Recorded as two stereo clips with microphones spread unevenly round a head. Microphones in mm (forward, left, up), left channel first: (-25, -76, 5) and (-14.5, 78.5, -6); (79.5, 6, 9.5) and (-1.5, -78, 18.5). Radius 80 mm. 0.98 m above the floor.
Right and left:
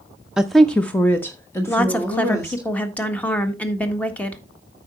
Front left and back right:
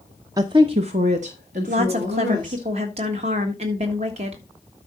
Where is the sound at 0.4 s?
165° left, 0.5 m; by 2.7 s 165° right, 2 m.